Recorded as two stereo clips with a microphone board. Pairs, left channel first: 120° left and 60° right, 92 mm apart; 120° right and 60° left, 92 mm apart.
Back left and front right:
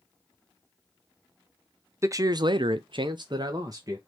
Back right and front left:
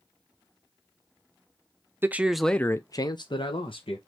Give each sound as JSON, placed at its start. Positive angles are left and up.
{"t": 2.0, "sound": "a man speaking", "azimuth_deg": -5, "distance_m": 0.6}